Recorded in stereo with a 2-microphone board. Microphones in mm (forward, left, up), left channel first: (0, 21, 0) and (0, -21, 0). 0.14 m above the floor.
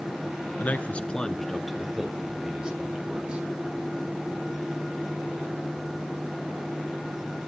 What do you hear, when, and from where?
0.6 s a man speaking: 45° left (ahead or behind), 1.4 m; by 3.5 s 25° right (ahead or behind), 3.5 m